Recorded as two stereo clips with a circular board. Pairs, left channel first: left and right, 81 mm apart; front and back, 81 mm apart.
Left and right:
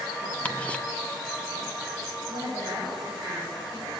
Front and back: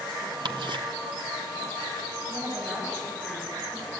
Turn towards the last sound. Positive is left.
turn(degrees=-120)